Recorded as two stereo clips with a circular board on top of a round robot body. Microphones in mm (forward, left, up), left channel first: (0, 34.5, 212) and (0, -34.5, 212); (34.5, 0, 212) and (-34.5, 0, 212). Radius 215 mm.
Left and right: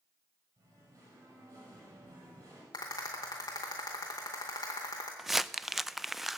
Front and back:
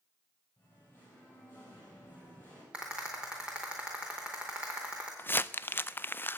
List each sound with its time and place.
0.6 s singing: 60° right, 6.5 m
2.7 s a rattle: 105° left, 0.5 m
5.2 s crumpling: 5° right, 0.6 m